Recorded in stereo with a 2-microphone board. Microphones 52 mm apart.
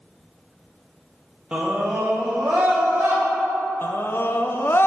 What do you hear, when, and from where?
1.5 s a scream: 20° right (ahead or behind), 1.0 m; by 3.2 s 55° right (ahead or behind), 3 m
3.8 s a scream: 45° left (ahead or behind), 0.6 m